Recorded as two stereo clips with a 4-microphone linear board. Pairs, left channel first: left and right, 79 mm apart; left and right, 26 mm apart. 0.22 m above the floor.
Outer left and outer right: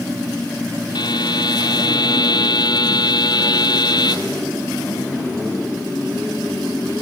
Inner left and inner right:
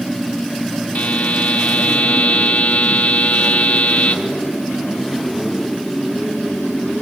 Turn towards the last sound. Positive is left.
turn(degrees=60)  # may be behind; listen again after turning